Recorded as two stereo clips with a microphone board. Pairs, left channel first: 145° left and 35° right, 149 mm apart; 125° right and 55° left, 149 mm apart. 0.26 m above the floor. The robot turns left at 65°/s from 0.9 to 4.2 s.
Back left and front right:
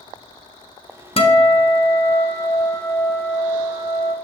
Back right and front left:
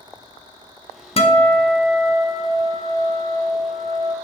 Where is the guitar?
165° right, 0.7 m; by 4.1 s straight ahead, 0.7 m.